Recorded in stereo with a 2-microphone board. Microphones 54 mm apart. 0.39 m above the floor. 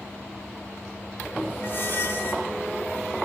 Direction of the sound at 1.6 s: 50° left (ahead or behind).